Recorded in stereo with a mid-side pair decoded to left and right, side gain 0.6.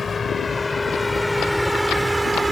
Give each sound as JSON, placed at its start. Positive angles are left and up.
{"t": 0.0, "sound": "a vehicle", "azimuth_deg": 20}